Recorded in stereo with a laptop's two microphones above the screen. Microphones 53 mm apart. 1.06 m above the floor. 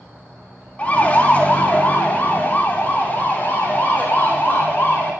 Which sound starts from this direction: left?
A siren, at 0.8 s.